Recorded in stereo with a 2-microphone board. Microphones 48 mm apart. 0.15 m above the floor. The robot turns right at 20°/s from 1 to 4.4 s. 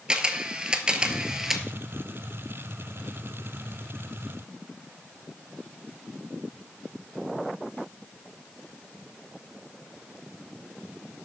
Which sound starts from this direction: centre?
A camera shutter, at 0.1 s.